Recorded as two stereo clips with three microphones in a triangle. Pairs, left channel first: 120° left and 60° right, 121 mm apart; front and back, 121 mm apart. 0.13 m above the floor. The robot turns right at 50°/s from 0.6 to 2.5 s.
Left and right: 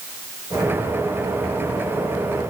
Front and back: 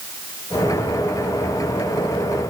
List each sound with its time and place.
Only background noise.